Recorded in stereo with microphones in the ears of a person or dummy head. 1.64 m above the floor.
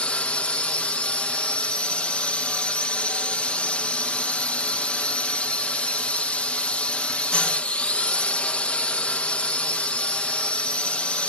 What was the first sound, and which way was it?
A drone, 5° left (ahead or behind).